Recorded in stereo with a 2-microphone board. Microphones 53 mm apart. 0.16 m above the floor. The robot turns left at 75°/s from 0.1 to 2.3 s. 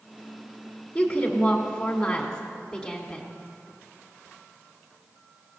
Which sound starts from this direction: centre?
A woman speaking, at 0.9 s.